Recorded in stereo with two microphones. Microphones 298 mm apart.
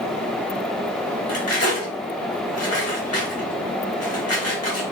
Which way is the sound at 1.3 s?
50° left (ahead or behind).